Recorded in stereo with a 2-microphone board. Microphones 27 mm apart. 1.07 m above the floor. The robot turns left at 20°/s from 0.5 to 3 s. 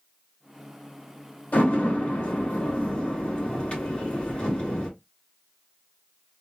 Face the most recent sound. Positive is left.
turn(degrees=40)  # may be behind; listen again after turning